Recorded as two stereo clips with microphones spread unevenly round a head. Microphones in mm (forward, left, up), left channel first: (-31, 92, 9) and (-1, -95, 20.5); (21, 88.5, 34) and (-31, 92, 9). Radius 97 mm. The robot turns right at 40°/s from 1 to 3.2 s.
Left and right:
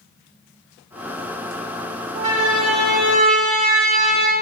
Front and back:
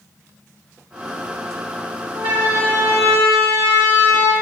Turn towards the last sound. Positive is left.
turn(degrees=-30)